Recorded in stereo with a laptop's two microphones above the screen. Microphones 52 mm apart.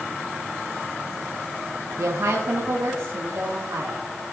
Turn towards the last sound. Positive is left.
turn(degrees=-70)  # may be behind; listen again after turning